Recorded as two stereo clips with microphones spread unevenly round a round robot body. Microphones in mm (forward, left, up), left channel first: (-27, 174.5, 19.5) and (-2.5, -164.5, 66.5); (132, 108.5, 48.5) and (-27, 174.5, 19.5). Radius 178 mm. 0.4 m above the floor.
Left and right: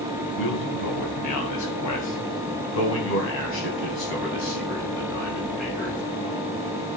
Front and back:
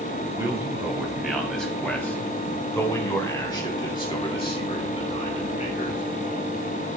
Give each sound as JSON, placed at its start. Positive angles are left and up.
{"t": 0.3, "sound": "a man speaking", "azimuth_deg": 85, "distance_m": 3.0}